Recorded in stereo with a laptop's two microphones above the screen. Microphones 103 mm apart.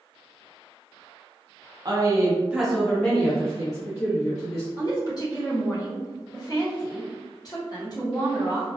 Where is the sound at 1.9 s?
40° right (ahead or behind), 0.7 m; by 4.7 s 40° left (ahead or behind), 1.6 m.